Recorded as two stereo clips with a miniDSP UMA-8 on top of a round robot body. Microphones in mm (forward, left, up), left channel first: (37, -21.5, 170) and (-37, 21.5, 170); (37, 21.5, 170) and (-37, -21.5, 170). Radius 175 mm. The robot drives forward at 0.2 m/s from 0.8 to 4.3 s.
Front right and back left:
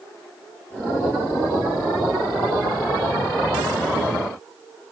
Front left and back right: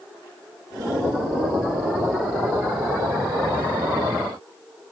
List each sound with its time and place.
Only background noise.